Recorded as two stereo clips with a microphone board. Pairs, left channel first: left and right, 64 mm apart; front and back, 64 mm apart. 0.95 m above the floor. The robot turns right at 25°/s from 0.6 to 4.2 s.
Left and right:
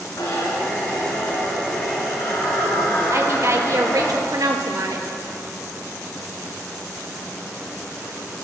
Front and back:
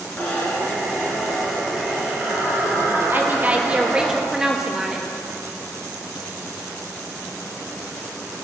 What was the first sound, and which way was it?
A zipper, 65° left.